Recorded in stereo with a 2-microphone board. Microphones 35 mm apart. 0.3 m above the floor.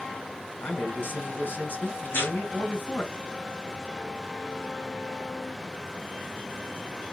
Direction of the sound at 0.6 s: 70° left (ahead or behind).